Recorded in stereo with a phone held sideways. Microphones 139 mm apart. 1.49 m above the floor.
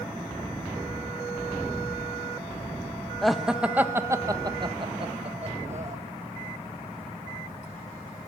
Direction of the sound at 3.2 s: Centre (ahead or behind).